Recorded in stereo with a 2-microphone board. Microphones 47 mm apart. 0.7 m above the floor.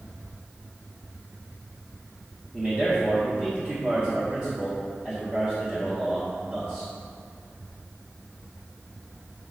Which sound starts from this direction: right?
A man speaking, at 2.5 s.